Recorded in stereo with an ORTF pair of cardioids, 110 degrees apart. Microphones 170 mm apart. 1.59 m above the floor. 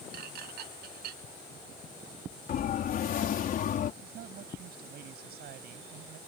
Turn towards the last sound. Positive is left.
turn(degrees=-65)